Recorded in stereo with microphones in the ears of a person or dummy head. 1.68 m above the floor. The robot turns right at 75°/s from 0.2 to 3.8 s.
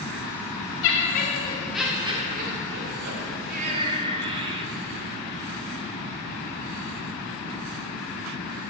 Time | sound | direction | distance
0.8 | laughter | 110° left | 1.7 m